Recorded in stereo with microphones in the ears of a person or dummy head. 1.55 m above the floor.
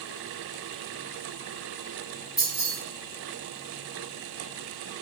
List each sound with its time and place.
2.4 s keys jangling: 5° right (ahead or behind), 0.8 m